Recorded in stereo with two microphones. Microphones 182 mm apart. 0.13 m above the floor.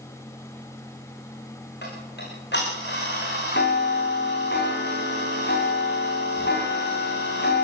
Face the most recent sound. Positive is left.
turn(degrees=70)  # may be behind; listen again after turning